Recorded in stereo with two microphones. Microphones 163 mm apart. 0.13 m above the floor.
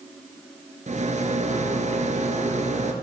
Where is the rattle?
45° right (ahead or behind), 1.8 m.